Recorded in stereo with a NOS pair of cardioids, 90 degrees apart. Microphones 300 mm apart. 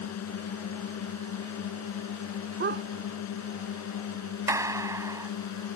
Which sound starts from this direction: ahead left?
A drone, at 0.0 s.